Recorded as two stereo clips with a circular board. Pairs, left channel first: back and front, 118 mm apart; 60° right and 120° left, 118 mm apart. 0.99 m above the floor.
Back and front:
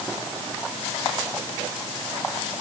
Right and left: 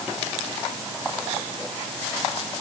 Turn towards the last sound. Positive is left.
No sound to turn to.